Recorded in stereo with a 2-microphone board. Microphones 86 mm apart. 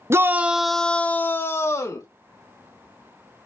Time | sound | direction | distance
0.1 | a shout | 35° right (ahead or behind) | 0.6 m